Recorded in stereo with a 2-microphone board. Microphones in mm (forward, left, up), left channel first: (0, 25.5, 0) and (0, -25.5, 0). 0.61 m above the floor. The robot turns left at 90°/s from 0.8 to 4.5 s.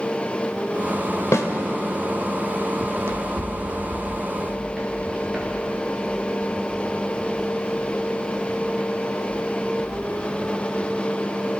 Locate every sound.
1.3 s a snare drum: 70° left (ahead or behind), 2 m; by 1.5 s 65° left (ahead or behind), 2 m
2.8 s running footsteps: 45° right (ahead or behind), 1.8 m; by 9.9 s 10° right (ahead or behind), 12.5 m